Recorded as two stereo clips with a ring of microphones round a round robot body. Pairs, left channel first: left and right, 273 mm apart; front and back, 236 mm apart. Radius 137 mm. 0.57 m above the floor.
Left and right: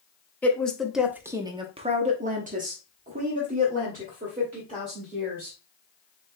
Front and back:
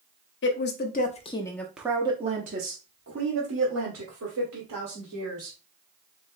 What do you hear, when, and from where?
0.4 s a woman speaking: 10° left, 0.8 m; by 5.6 s 155° right, 2 m